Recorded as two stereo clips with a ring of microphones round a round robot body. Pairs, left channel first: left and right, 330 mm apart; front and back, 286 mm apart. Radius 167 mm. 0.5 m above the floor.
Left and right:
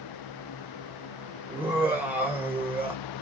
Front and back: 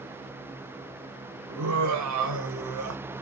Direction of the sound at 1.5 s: 175° right.